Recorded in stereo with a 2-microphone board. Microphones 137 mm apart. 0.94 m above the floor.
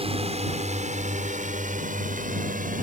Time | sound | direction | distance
0.0 | a drone | 45° right (ahead or behind) | ?